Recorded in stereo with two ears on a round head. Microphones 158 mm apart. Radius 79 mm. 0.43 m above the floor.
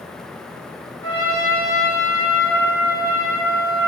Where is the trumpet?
15° left (ahead or behind), 1.9 m.